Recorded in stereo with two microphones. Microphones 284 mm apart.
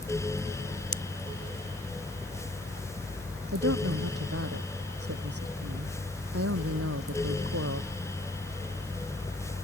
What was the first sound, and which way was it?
A pop, 50° left (ahead or behind).